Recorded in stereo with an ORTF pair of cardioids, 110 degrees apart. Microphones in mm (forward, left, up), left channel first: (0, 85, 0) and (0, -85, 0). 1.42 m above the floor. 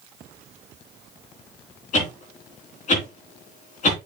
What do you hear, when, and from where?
1.9 s a whoosh: 45° left, 3.5 m